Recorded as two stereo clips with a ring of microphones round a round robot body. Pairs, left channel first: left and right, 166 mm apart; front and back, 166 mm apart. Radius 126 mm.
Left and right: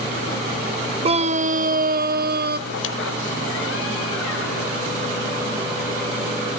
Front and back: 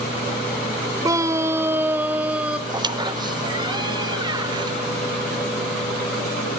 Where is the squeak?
115° left, 0.7 m.